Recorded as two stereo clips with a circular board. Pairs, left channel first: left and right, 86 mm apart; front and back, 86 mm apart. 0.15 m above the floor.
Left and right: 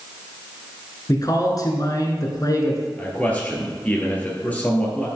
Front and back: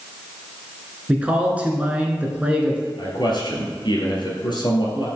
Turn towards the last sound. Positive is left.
turn(degrees=20)